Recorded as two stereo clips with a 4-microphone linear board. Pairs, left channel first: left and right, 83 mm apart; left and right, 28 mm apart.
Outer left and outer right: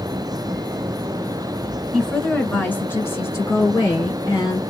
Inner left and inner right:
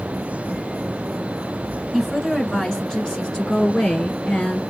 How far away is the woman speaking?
About 1.7 m.